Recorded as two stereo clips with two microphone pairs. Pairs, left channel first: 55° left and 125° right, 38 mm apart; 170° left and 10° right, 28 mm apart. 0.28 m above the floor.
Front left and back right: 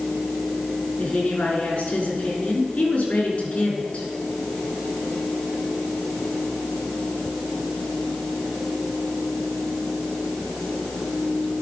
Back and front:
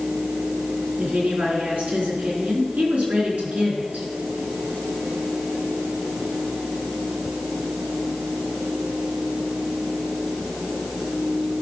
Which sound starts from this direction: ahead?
A woman speaking, at 1.0 s.